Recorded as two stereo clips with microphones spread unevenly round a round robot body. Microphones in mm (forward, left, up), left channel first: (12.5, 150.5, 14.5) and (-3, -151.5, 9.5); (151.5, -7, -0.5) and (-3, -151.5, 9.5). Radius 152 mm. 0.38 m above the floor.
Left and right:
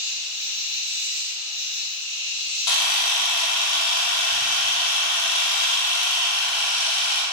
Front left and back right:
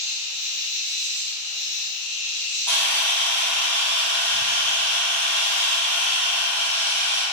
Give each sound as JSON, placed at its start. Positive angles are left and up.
{"t": 0.0, "sound": "an insect", "azimuth_deg": 170, "distance_m": 1.9}
{"t": 2.7, "sound": "a camera shutter", "azimuth_deg": 125, "distance_m": 0.6}